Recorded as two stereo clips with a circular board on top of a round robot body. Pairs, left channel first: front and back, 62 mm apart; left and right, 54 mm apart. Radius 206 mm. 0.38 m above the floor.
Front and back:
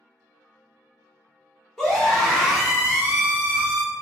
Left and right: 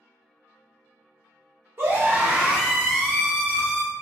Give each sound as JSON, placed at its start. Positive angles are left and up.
{"t": 1.8, "sound": "a scream", "azimuth_deg": -80, "distance_m": 1.3}